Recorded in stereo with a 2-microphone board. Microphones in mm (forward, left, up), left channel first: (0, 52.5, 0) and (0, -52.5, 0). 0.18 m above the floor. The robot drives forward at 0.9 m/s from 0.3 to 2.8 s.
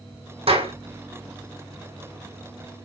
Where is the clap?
70° right (ahead or behind), 6 m.